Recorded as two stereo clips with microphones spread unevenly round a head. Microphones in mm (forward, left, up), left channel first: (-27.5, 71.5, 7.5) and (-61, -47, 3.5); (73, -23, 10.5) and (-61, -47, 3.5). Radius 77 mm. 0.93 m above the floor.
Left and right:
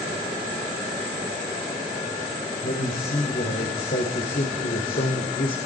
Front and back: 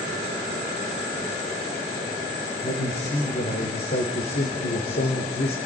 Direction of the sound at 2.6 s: 45° left.